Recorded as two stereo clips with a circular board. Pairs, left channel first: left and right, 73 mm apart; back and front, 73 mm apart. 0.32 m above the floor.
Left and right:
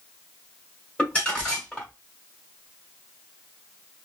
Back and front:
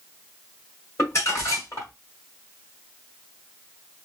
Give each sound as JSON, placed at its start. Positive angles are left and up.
{"t": 1.0, "sound": "crumpling", "azimuth_deg": 160, "distance_m": 1.7}